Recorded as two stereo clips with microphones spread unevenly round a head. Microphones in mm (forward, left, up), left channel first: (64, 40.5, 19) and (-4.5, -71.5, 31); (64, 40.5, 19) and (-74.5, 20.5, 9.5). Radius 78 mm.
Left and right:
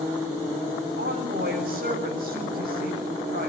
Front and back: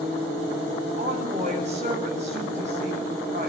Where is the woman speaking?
125° right, 7.5 m.